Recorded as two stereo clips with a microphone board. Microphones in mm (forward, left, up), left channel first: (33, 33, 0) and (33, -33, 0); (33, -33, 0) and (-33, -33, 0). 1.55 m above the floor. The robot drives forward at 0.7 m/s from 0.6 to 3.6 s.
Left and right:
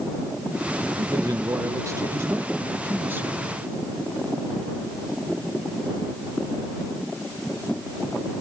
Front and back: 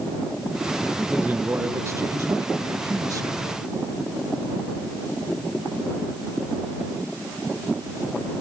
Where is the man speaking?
110° right; by 3.4 s 150° right.